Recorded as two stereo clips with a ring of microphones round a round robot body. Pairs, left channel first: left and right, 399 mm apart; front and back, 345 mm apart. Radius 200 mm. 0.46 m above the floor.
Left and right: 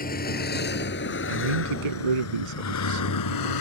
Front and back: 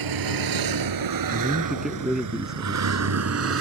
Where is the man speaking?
90° right.